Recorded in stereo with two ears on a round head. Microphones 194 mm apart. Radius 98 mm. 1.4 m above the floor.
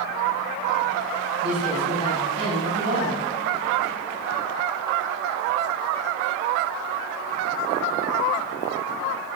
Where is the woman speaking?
85° right, 8.5 m.